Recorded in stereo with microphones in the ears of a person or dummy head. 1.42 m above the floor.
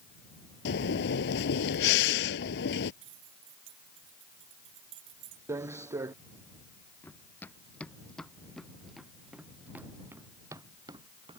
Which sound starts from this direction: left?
Breathing, at 0.7 s.